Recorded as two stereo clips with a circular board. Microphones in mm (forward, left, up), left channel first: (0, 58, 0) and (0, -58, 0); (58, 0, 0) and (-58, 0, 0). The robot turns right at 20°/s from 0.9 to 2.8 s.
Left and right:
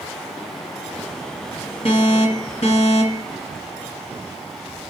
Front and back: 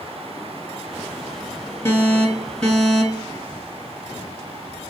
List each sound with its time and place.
1.9 s an alarm: 60° left, 2 m; by 3.3 s 80° left, 2 m